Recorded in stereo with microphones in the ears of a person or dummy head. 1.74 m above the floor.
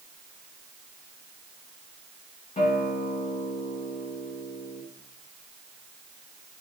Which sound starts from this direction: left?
A guitar, at 2.6 s.